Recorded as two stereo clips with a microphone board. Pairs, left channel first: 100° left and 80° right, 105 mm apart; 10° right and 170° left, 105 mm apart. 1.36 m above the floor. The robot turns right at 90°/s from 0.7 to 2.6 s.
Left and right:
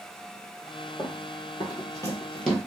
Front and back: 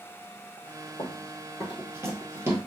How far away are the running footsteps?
About 2 m.